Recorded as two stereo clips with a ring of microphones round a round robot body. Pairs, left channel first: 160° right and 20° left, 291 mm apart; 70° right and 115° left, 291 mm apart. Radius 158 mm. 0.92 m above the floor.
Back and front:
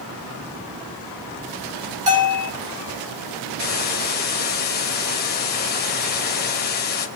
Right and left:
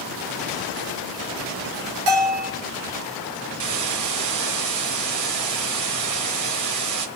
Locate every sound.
2.1 s a bell: 90° left, 5 m
3.6 s a hiss: 145° left, 1.9 m